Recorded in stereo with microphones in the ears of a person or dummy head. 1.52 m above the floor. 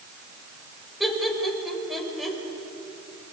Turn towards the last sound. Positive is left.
turn(degrees=0)  # may be behind; listen again after turning